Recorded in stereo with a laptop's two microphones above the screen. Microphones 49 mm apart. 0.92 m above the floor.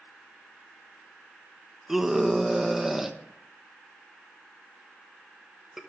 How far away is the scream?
About 0.9 m.